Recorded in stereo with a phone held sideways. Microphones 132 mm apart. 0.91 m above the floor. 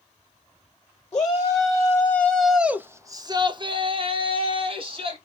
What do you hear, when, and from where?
1.1 s a shout: 30° left (ahead or behind), 1.1 m; by 5.2 s 45° right (ahead or behind), 1.5 m